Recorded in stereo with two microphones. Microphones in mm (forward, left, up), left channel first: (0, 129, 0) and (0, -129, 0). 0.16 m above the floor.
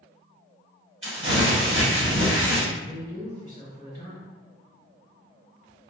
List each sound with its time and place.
1.0 s crumpling: 55° right (ahead or behind), 1.2 m
2.7 s a man speaking: 25° left (ahead or behind), 1.8 m